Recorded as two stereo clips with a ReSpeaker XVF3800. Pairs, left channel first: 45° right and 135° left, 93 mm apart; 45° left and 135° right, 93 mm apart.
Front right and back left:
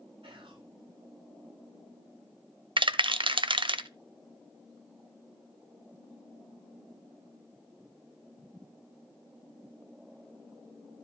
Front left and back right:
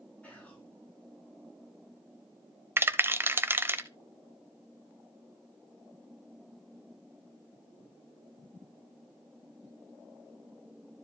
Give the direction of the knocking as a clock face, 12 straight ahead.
No knocking in this recording.